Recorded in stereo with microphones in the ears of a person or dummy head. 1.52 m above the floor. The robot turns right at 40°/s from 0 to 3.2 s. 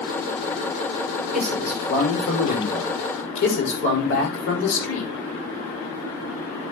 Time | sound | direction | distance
1.3 | a man speaking | straight ahead | 6.5 m